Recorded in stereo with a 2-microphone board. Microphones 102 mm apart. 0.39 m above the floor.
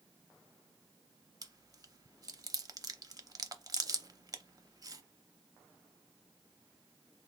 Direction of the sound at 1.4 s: 40° right (ahead or behind).